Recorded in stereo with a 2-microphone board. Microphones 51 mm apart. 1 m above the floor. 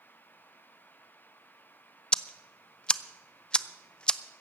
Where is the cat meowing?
No cat meowing in this recording.